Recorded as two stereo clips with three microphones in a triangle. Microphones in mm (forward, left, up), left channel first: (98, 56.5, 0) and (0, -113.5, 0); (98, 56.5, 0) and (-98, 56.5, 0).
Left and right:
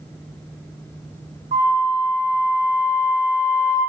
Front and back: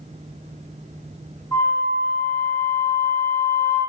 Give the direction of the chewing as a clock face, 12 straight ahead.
I don't hear chewing.